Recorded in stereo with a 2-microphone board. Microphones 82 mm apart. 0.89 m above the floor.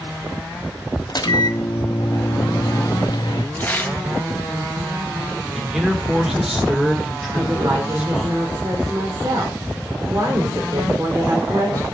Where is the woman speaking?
45° right (ahead or behind), 3 m.